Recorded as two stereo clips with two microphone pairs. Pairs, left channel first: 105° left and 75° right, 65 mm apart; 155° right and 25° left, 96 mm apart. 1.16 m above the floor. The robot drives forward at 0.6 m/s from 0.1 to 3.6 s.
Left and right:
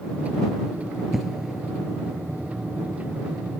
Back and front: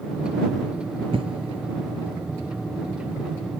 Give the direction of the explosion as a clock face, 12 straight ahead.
12 o'clock.